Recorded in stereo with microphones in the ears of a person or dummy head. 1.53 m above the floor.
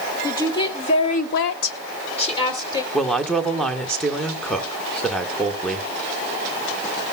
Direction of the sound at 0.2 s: 20° left (ahead or behind).